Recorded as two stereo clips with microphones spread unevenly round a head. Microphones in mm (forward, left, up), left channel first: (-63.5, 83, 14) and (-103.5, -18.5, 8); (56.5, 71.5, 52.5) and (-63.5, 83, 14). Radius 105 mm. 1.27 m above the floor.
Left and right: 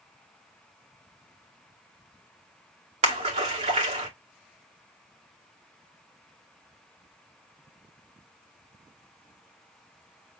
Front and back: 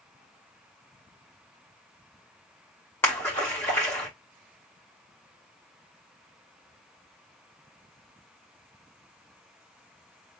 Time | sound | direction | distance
3.0 | a splash | 85° right | 1.6 m